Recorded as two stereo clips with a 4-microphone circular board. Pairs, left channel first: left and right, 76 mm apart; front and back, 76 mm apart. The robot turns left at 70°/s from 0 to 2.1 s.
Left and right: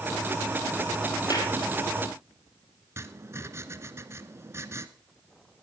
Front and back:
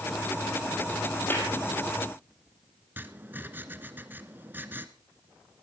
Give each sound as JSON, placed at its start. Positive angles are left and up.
{"t": 1.3, "sound": "a clap", "azimuth_deg": 60, "distance_m": 4.5}
{"t": 3.0, "sound": "writing", "azimuth_deg": -125, "distance_m": 1.1}